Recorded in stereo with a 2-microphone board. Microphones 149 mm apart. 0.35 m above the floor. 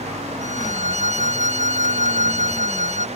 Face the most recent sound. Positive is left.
turn(degrees=55)  # may be behind; listen again after turning